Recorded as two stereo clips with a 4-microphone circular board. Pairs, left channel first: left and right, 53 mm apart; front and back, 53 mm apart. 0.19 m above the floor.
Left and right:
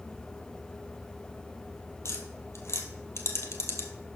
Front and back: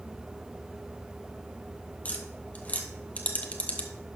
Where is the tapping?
65° left, 1.0 m.